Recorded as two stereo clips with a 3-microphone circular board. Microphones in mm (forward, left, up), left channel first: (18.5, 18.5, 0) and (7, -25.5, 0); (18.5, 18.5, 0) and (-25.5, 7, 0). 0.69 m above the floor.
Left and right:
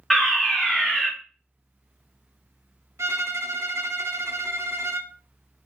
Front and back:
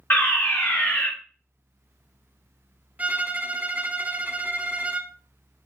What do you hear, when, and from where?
0.1 s a fire alarm: 15° right, 2.5 m
3.0 s a violin: 110° right, 0.5 m